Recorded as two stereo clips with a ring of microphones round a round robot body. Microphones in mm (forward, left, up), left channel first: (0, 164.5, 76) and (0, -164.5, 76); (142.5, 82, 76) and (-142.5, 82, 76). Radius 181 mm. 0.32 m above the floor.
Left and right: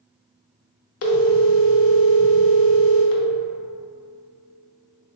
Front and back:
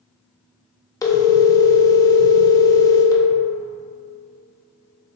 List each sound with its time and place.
1.0 s a phone ringing: 75° left, 0.7 m